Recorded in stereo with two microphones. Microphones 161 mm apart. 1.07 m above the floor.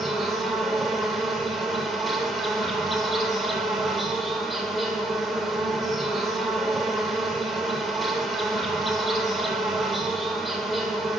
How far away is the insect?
About 0.8 m.